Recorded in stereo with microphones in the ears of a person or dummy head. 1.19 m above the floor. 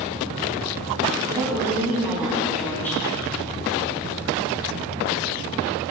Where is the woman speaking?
20° right (ahead or behind), 3.5 m; by 3.0 s 15° left (ahead or behind), 2 m.